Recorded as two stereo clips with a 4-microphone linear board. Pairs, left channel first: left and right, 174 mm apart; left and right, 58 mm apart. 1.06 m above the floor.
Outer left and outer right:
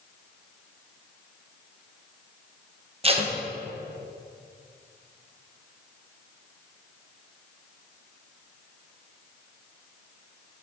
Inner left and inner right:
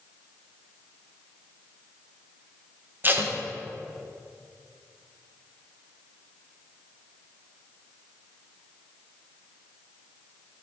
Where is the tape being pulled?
35° right (ahead or behind), 0.9 m.